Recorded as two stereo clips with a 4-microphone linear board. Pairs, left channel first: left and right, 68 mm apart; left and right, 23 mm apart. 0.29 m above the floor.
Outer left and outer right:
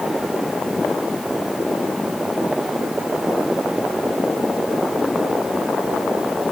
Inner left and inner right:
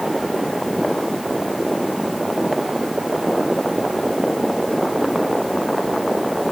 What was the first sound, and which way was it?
Only background noise.